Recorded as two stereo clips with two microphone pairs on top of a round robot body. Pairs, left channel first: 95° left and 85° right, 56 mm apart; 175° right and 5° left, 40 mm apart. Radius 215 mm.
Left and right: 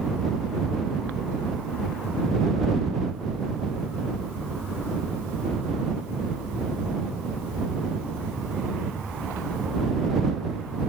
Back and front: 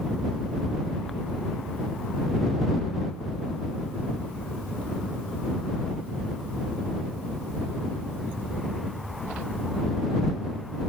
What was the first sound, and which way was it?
Only background noise.